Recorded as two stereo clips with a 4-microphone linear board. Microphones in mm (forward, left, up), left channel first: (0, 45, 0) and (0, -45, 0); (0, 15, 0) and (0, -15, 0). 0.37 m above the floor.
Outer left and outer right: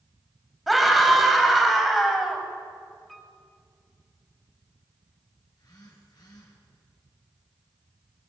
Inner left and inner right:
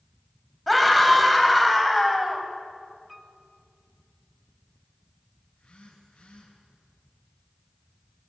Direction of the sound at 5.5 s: 50° left (ahead or behind).